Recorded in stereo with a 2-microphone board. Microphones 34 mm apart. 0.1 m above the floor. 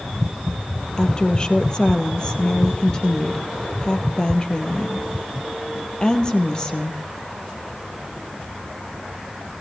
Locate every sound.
1.0 s a woman speaking: 25° left (ahead or behind), 3 m